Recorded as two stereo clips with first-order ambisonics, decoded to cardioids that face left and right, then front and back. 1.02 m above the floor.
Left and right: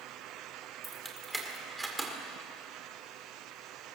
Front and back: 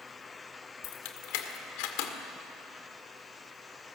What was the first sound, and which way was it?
Keys jangling, 5° right.